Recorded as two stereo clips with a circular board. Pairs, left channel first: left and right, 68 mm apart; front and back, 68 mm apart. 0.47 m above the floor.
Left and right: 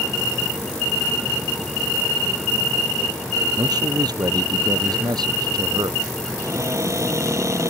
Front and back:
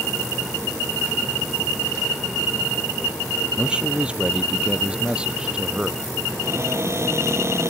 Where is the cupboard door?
135° right.